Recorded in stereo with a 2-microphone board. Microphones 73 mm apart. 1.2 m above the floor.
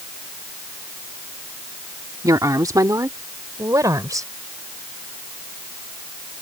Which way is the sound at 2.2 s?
60° right (ahead or behind).